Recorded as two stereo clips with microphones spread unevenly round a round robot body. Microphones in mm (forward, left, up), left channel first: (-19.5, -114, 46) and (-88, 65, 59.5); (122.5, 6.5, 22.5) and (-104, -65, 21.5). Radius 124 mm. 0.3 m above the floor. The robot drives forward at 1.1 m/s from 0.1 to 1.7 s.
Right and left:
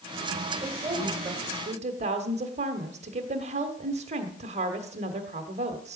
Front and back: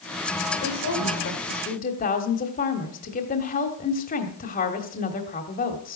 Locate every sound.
0.6 s a woman speaking: 30° left, 2 m; by 6.0 s 60° left, 1.3 m